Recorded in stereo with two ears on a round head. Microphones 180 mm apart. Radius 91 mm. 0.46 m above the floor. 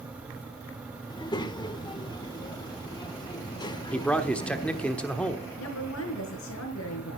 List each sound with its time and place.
1.1 s a child speaking: 20° left (ahead or behind), 0.9 m
3.9 s a man speaking: 5° left (ahead or behind), 1.2 m
5.6 s a woman speaking: 75° left (ahead or behind), 5 m